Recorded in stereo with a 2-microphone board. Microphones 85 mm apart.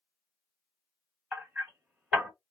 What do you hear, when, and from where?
1.3 s hammering: 15° right (ahead or behind), 1.3 m